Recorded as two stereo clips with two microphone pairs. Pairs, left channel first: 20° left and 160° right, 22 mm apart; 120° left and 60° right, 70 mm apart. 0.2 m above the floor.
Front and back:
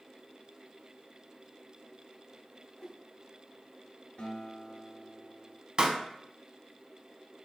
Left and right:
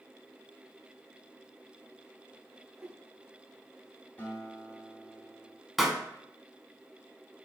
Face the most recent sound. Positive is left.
turn(degrees=-145)